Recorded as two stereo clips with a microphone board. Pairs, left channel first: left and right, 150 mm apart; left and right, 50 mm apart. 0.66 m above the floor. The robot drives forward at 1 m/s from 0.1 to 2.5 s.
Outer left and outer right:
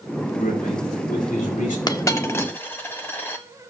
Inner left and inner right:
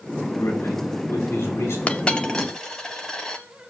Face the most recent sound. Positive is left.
turn(degrees=15)  # may be behind; listen again after turning